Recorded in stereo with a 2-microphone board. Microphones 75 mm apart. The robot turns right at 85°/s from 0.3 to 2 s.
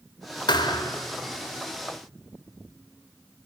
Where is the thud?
90° left, 1.6 m; by 1.0 s 135° left, 1.6 m.